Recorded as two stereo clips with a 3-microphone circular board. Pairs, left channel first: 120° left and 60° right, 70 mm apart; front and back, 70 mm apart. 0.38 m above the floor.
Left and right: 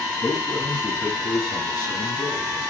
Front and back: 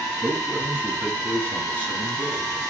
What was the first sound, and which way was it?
A man speaking, 125° left.